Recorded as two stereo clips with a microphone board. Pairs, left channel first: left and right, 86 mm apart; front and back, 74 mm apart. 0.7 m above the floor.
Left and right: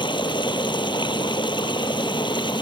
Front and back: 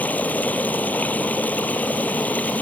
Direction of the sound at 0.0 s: 70° left.